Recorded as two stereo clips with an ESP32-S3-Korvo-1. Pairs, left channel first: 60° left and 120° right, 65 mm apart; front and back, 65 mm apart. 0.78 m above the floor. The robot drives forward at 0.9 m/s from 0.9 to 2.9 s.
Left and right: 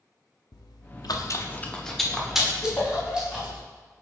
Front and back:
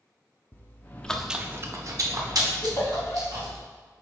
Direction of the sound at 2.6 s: 15° left.